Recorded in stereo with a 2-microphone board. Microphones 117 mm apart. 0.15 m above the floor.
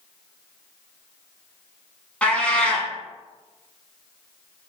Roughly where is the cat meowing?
Centre.